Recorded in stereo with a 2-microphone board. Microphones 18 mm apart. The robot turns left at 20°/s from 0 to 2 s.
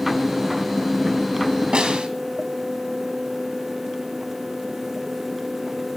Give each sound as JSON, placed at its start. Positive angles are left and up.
{"t": 1.7, "sound": "a snare drum", "side_deg": -60, "distance_m": 2.5}